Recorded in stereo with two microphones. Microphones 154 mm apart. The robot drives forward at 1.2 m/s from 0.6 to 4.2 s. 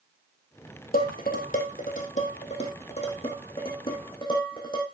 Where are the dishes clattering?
70° left (ahead or behind), 3 m; by 4.8 s 35° left (ahead or behind), 5 m.